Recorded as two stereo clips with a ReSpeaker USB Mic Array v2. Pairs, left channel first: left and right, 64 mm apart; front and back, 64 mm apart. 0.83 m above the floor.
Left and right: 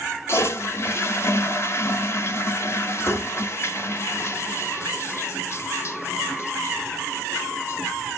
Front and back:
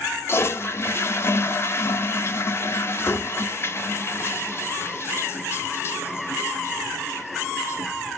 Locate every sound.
0.3 s a toilet flushing: 45° left, 0.7 m